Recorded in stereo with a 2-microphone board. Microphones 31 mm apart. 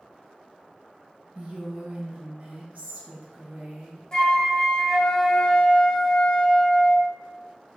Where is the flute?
20° left (ahead or behind), 0.8 m.